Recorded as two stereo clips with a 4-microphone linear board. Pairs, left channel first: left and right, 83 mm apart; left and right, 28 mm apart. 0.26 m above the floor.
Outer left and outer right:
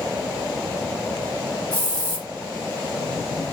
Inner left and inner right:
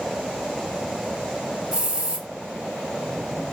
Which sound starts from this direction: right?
A hiss, at 1.7 s.